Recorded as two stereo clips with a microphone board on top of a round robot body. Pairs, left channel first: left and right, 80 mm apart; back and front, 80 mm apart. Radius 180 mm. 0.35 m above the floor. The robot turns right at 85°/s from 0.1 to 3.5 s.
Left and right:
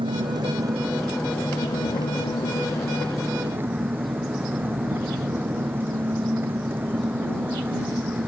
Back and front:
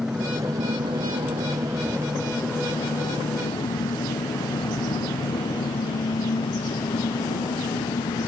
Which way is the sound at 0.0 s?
85° right.